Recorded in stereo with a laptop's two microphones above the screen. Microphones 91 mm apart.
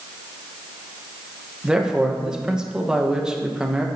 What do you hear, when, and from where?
1.6 s a man speaking: 10° right (ahead or behind), 1.0 m